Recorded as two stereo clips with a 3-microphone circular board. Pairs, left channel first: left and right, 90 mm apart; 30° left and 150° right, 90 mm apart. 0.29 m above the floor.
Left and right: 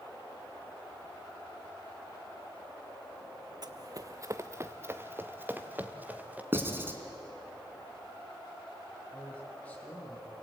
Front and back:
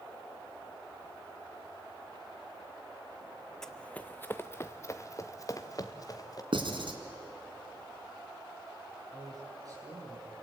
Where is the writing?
155° right, 2.5 m.